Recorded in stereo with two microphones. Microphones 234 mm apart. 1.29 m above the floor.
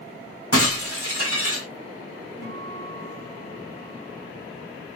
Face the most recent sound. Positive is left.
turn(degrees=85)